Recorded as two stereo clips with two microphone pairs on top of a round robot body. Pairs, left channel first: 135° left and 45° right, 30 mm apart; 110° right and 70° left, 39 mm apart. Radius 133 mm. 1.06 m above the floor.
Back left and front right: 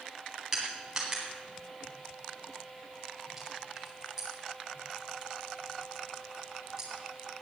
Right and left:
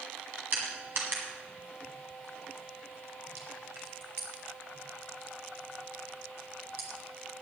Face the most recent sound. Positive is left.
turn(degrees=35)